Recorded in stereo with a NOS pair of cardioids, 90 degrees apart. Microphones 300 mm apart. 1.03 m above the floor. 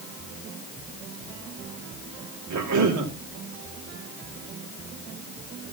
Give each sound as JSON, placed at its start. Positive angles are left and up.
{"t": 2.5, "sound": "a cough", "azimuth_deg": -65, "distance_m": 3.0}